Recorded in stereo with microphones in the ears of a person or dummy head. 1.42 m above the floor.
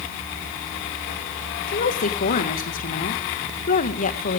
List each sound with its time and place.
1.7 s a woman speaking: 45° left (ahead or behind), 1.6 m